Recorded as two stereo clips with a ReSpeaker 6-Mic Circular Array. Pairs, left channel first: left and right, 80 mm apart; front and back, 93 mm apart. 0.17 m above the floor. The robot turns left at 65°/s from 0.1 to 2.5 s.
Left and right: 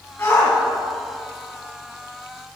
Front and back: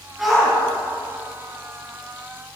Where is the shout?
95° left, 1.5 m; by 0.6 s 70° left, 1.5 m.